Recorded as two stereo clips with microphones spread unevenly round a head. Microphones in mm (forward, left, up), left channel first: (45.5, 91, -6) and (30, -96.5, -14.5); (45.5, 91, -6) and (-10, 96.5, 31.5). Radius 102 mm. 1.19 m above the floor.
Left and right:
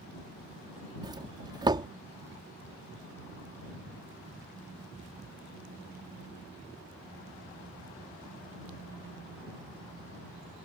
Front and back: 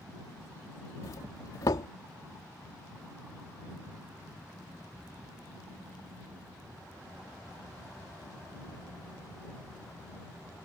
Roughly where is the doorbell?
Ahead right.